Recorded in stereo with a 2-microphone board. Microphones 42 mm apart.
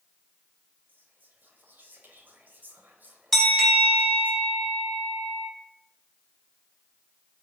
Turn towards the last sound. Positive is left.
turn(degrees=5)  # may be behind; listen again after turning